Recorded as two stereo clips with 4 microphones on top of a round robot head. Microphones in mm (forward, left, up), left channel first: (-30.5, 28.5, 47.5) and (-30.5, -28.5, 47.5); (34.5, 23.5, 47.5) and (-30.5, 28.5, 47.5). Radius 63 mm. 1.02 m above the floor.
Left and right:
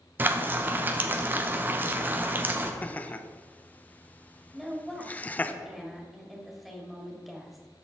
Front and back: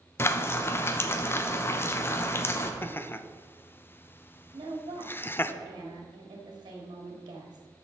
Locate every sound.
0.2 s frying: 45° right, 0.8 m
2.8 s laughter: 35° left, 0.7 m
4.5 s a woman speaking: 170° right, 1.8 m